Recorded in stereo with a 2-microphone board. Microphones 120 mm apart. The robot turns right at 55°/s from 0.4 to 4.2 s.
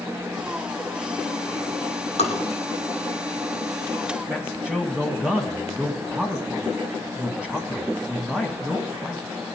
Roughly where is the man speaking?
Centre.